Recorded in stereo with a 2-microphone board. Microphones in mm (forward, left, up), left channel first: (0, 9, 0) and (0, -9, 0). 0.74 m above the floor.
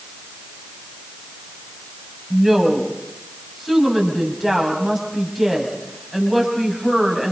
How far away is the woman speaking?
About 5.5 m.